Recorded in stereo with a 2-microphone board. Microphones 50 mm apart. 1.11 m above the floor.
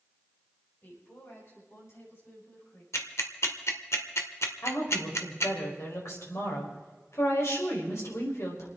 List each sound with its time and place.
0.8 s a woman speaking: 50° left (ahead or behind), 6.5 m; by 2.8 s 65° left (ahead or behind), 8.5 m
2.9 s ticking: 70° left (ahead or behind), 1.6 m
4.6 s a woman speaking: 75° left (ahead or behind), 5 m